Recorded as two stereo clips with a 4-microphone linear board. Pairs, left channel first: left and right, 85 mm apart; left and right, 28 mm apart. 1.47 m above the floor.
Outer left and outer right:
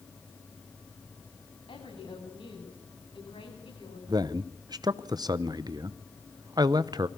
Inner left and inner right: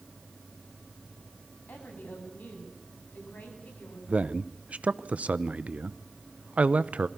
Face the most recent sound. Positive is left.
turn(degrees=-50)  # may be behind; listen again after turning